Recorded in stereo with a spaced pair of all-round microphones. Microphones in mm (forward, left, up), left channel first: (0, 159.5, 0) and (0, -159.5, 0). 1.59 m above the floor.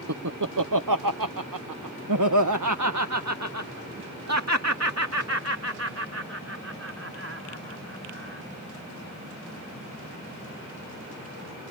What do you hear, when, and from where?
0.1 s laughter: 55° right (ahead or behind); by 8.4 s 45° right (ahead or behind)